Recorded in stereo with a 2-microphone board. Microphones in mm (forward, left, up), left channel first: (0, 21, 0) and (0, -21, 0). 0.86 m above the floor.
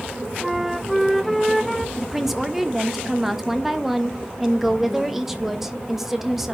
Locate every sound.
0.4 s a flute: centre (ahead or behind), 0.6 m
2.0 s a woman speaking: 5° right (ahead or behind), 1.1 m